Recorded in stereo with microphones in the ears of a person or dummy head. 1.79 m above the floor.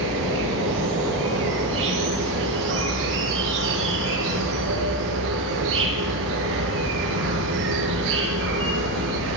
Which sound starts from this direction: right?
An insect, at 0.0 s.